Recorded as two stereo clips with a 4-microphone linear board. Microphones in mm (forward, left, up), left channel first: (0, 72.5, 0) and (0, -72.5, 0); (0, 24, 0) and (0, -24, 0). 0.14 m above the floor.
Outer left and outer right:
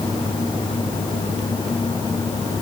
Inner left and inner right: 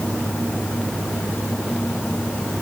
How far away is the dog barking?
No dog barking in this recording.